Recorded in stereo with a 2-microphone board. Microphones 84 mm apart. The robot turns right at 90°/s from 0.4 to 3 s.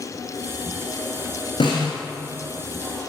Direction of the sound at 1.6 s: 70° left (ahead or behind).